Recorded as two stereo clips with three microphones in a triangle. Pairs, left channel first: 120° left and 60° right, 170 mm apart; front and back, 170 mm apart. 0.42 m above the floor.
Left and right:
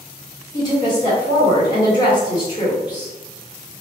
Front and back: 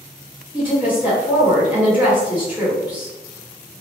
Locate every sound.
0.5 s a woman speaking: 115° left, 1.3 m